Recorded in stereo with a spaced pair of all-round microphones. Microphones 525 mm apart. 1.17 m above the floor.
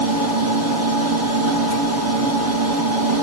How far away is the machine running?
About 6 m.